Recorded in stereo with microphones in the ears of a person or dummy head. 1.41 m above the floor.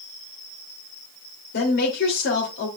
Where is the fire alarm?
No fire alarm in this recording.